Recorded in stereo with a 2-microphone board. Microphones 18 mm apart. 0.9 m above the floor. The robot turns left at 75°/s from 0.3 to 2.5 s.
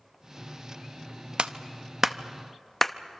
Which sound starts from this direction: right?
A clap, at 1.4 s.